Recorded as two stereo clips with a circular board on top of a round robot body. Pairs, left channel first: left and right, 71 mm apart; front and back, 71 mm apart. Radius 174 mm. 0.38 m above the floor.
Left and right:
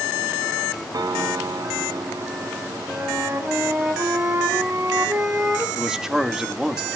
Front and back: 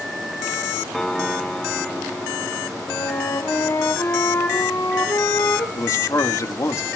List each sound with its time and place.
0.9 s a piano: 85° right, 0.9 m
2.9 s a flute: 40° right, 2.5 m
5.8 s a man speaking: 10° right, 1.8 m